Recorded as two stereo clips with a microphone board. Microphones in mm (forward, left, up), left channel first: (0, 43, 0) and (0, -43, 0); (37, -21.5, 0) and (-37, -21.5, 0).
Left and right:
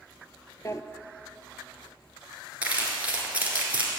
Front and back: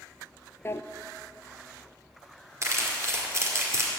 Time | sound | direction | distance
0.7 | a drawer | 45° left | 0.5 m
2.6 | crumpling | 155° right | 2 m